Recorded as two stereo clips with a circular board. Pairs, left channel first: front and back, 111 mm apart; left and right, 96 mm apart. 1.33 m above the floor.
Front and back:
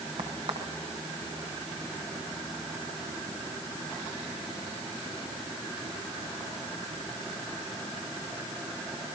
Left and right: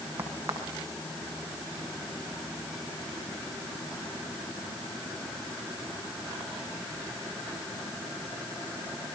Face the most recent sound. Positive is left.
turn(degrees=-155)